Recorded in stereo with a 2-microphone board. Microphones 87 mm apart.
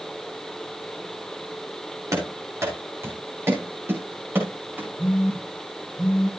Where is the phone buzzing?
15° left (ahead or behind), 8.5 m.